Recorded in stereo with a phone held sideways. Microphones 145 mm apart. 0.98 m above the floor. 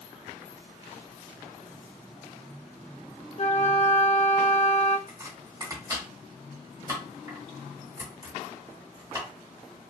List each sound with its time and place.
3.4 s a flute: 50° left (ahead or behind), 0.5 m
5.1 s chopping: 25° right (ahead or behind), 1.6 m